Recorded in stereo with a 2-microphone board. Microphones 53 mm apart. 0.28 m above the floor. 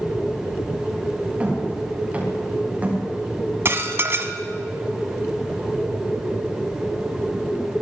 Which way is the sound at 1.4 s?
25° right (ahead or behind).